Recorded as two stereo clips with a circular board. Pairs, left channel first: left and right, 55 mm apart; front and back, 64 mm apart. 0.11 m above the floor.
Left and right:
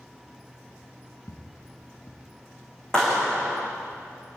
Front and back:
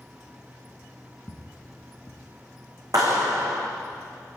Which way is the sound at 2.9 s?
165° left.